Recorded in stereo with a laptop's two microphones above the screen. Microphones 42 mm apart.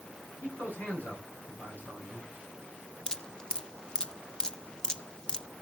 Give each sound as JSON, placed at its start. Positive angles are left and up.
{"t": 0.4, "sound": "a man speaking", "side_deg": 40, "distance_m": 9.5}
{"t": 3.1, "sound": "dripping", "side_deg": 20, "distance_m": 1.2}